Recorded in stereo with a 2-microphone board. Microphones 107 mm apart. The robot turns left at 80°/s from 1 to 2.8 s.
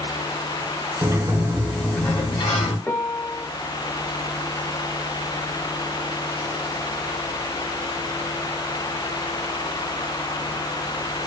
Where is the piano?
15° left (ahead or behind), 0.6 m.